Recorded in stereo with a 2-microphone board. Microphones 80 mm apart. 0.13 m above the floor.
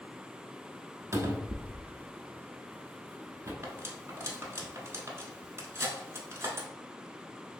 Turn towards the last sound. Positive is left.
turn(degrees=-35)  # may be behind; listen again after turning